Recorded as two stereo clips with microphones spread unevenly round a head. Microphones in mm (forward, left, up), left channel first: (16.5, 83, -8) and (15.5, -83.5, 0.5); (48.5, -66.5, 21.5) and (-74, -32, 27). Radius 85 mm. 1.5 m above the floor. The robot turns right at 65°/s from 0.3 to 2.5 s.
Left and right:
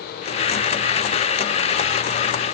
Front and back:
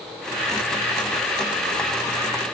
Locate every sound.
Only background noise.